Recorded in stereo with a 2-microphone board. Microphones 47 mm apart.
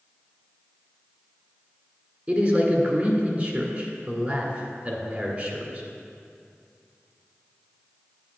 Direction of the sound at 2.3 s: 35° right (ahead or behind).